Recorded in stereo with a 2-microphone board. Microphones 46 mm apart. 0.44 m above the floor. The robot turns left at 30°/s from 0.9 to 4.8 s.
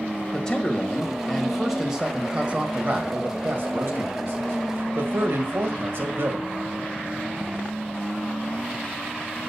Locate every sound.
0.3 s a man speaking: 20° left, 1.8 m; by 6.5 s 100° right, 1.8 m